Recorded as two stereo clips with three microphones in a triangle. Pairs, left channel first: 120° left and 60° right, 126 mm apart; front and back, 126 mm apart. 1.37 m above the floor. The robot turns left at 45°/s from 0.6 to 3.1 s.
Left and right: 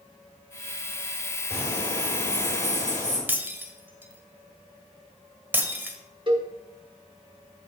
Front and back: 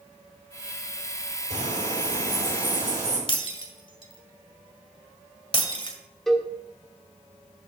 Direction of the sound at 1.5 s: 175° right.